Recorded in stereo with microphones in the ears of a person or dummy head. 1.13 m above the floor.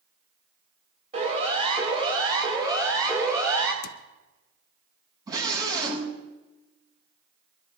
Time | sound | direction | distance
1.1 | a siren | 40° right (ahead or behind) | 6 m
3.8 | a cupboard door | 80° left | 0.7 m
5.3 | a scream | 25° right (ahead or behind) | 6 m